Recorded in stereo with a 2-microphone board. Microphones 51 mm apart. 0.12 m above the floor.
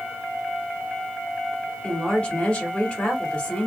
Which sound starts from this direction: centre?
A woman speaking, at 1.8 s.